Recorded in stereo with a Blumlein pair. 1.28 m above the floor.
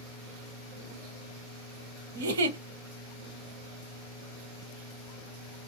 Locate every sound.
2.1 s a giggle: 60° right, 0.7 m